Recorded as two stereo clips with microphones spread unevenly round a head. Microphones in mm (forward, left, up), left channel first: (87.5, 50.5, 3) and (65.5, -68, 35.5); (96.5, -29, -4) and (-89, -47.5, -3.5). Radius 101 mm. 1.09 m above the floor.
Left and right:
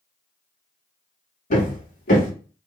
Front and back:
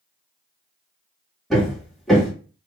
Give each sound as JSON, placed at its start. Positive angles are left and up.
{"t": 1.5, "sound": "hammering", "azimuth_deg": 95, "distance_m": 1.4}